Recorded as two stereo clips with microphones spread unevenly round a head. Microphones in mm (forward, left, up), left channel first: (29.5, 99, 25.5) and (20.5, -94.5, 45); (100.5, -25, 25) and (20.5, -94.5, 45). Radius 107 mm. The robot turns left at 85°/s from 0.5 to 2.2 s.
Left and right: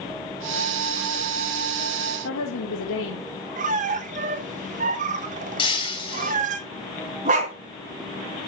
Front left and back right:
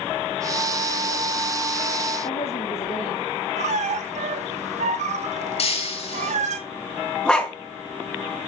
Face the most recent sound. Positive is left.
turn(degrees=-45)